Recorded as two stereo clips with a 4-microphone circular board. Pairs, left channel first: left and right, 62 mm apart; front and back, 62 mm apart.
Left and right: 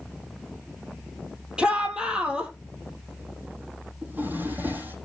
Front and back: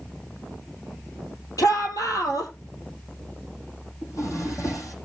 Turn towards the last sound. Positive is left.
turn(degrees=-30)